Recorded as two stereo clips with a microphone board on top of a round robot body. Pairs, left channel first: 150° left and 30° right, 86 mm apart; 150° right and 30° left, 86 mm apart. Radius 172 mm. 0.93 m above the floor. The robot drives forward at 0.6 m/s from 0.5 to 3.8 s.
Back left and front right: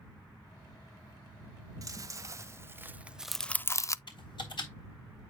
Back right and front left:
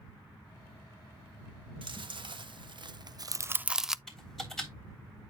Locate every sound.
1.8 s chewing: 15° left, 1.2 m; by 4.0 s 110° left, 0.5 m
4.1 s typing on a keyboard: 125° left, 3.5 m